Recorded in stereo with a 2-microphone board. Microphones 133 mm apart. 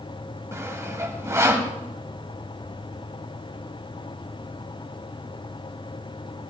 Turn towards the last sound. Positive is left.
turn(degrees=-20)  # may be behind; listen again after turning